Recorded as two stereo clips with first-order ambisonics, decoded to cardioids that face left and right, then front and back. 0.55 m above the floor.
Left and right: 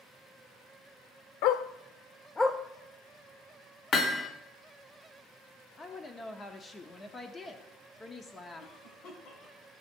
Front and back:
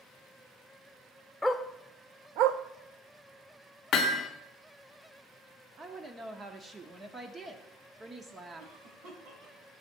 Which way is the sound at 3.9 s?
40° left.